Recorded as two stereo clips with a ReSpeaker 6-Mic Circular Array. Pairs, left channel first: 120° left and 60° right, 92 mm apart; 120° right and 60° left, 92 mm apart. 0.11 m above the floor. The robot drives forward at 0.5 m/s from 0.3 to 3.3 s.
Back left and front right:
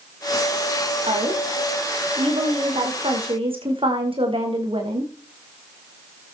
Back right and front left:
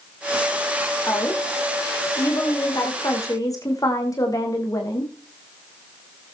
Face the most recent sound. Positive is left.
turn(degrees=-70)